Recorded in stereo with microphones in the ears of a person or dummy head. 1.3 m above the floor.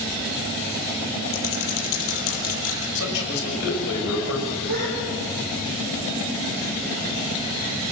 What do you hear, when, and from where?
1.3 s typing on a keyboard: 80° left, 7.5 m
3.0 s a man speaking: 80° left, 5.5 m
4.7 s a gasp: 70° right (ahead or behind), 9.5 m